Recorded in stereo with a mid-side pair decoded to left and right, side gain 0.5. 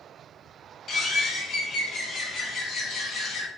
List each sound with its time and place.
0.9 s a bird: 50° left, 1.0 m